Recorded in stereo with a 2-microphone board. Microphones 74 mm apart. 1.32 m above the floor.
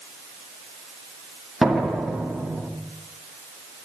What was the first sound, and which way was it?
A door slam, centre (ahead or behind).